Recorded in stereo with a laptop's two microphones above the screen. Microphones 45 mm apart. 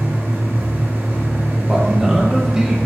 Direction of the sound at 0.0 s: 60° right (ahead or behind).